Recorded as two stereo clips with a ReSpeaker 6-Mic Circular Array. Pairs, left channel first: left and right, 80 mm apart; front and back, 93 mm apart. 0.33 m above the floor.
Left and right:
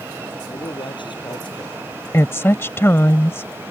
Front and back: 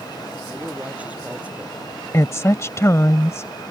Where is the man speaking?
105° left.